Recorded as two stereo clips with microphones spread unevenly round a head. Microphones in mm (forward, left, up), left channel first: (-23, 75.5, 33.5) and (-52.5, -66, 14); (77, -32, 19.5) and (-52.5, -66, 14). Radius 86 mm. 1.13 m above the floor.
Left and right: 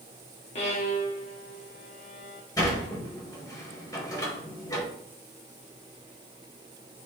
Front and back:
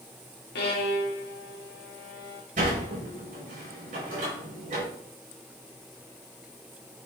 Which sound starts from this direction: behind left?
A sliding door, at 2.6 s.